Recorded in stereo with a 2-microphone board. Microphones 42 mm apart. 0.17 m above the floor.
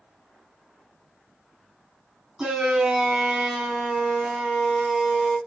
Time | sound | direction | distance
2.4 | a shout | 15° right (ahead or behind) | 1.6 m